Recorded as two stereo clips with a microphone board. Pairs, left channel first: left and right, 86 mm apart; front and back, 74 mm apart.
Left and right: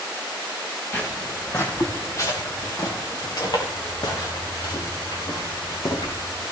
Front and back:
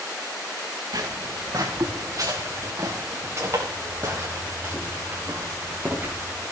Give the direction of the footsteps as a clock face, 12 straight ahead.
7 o'clock.